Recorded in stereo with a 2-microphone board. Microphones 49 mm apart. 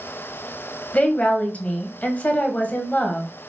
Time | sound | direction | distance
0.9 | a woman speaking | 30° left (ahead or behind) | 1.1 m